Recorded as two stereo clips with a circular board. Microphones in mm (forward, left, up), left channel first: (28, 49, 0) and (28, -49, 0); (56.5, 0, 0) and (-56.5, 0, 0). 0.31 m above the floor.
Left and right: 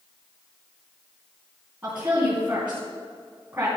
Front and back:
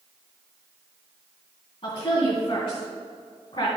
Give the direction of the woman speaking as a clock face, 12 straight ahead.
1 o'clock.